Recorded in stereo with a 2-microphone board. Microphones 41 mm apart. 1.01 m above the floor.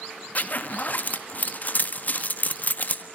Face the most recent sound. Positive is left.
turn(degrees=45)  # may be behind; listen again after turning